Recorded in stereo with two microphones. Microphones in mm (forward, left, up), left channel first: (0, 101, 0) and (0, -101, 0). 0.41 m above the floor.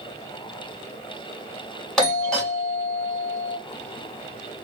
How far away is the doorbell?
About 1.8 m.